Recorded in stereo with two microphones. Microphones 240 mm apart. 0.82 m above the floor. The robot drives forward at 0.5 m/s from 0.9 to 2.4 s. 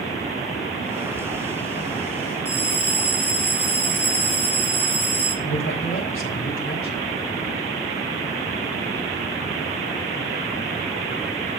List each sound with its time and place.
2.5 s a bell: 80° right, 5 m
5.4 s a man speaking: 60° left (ahead or behind), 2.5 m